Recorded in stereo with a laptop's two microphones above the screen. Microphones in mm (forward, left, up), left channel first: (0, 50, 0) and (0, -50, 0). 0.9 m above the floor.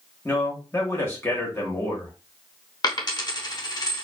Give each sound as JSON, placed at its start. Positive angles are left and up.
{"t": 0.2, "sound": "a man speaking", "side_deg": 25, "distance_m": 1.0}
{"t": 2.8, "sound": "a dropped coin", "side_deg": 45, "distance_m": 0.7}